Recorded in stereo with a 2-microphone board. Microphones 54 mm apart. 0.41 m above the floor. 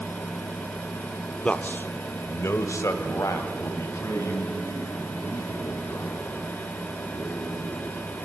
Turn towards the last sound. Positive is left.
turn(degrees=65)  # may be behind; listen again after turning